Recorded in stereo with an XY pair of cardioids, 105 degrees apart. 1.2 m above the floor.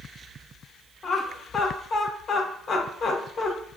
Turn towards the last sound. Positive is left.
turn(degrees=50)